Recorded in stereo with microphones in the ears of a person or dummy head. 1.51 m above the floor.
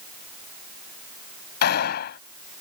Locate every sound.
1.6 s a gunshot: 55° left (ahead or behind)